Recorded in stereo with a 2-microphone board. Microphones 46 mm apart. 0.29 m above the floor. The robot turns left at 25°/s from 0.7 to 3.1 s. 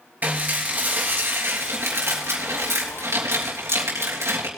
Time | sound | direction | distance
0.2 | dishes clattering | 40° right | 3 m